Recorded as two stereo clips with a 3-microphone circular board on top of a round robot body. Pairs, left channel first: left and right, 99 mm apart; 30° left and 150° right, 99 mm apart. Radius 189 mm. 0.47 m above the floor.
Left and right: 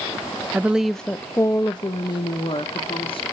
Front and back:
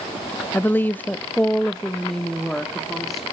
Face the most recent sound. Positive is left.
turn(degrees=120)